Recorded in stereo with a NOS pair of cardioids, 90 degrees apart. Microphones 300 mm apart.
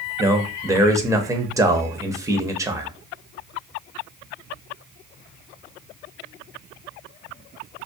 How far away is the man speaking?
About 0.6 m.